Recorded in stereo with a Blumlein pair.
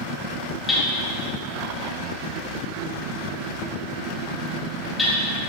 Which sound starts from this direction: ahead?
Hammering, at 0.7 s.